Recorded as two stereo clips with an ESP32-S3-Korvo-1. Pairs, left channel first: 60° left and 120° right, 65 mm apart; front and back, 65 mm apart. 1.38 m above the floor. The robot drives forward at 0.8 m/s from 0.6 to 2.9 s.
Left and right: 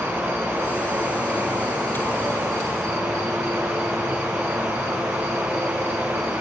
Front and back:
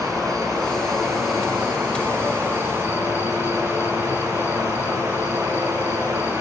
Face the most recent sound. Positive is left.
turn(degrees=-135)